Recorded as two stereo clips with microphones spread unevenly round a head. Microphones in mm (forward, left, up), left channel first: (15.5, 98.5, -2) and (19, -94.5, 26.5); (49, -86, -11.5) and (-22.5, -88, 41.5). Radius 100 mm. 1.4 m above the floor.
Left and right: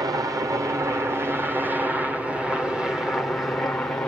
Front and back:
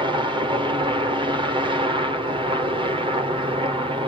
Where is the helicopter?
160° right; by 4.1 s 155° left.